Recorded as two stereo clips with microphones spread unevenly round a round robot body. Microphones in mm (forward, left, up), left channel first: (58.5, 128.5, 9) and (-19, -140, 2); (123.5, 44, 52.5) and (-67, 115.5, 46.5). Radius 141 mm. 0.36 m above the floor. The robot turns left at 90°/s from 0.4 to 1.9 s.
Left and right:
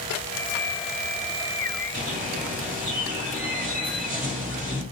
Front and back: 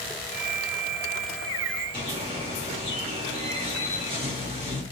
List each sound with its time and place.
1.9 s a bird: 155° right, 1.6 m